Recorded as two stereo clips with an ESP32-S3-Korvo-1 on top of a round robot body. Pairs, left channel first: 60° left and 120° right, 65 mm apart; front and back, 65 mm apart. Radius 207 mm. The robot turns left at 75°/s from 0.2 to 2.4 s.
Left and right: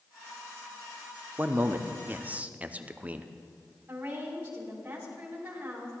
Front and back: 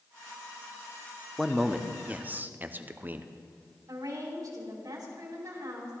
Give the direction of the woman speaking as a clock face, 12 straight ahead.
6 o'clock.